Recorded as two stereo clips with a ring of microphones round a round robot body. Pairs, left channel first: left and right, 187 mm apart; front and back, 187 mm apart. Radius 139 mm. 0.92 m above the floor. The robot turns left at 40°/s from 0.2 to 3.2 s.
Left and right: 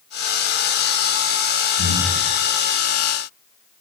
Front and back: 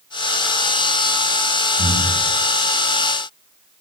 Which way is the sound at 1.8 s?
90° right.